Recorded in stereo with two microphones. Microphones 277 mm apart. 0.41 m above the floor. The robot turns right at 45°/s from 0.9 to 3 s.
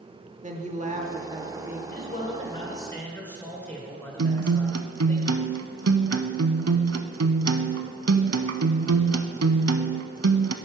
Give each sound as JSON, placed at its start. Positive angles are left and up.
{"t": 0.4, "sound": "a woman speaking", "azimuth_deg": -50, "distance_m": 0.9}
{"t": 1.9, "sound": "a man speaking", "azimuth_deg": 120, "distance_m": 1.6}
{"t": 4.2, "sound": "a guitar", "side_deg": -65, "distance_m": 0.5}